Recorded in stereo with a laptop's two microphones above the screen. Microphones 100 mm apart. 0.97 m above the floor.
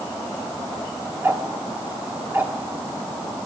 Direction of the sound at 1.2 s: 20° right (ahead or behind).